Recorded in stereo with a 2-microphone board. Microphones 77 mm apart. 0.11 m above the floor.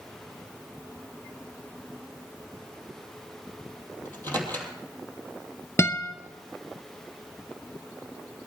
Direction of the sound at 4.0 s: 25° left (ahead or behind).